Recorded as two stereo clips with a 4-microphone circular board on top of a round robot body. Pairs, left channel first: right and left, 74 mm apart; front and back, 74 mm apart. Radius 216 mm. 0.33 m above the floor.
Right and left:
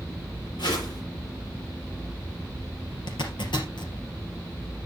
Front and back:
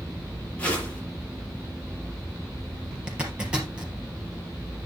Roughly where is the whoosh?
Right.